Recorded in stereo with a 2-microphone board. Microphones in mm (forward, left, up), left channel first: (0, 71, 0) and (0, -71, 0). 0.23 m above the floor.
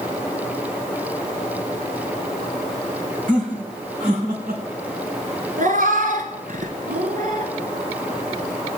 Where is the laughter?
70° right (ahead or behind), 5 m.